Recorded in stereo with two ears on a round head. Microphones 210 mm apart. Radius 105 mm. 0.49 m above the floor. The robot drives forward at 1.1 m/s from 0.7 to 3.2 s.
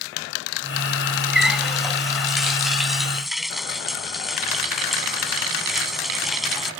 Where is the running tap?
Centre (ahead or behind).